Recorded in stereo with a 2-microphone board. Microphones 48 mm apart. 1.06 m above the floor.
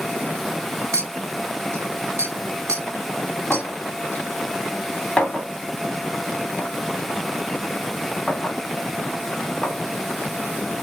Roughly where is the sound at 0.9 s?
Right.